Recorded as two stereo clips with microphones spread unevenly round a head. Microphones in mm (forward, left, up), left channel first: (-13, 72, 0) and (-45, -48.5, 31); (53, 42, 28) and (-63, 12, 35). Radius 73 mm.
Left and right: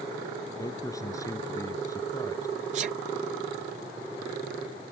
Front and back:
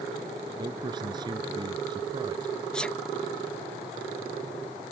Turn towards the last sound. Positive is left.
turn(degrees=-65)